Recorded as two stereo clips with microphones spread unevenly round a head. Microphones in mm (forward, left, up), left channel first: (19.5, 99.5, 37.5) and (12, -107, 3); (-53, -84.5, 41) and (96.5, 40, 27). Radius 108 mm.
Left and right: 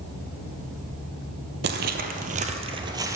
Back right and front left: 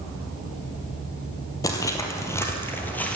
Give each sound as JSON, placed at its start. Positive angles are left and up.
{"t": 1.6, "sound": "footsteps", "azimuth_deg": -85, "distance_m": 1.4}